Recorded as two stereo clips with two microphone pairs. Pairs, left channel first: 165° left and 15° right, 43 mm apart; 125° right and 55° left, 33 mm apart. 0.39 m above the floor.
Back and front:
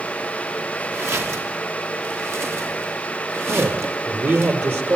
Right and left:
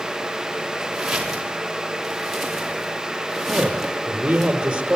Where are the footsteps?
20° right, 7.5 m; by 4.5 s 35° right, 8 m.